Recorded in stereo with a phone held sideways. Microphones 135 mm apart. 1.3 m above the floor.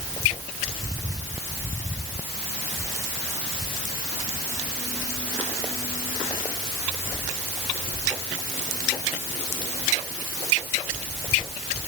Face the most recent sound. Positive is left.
No sound to turn to.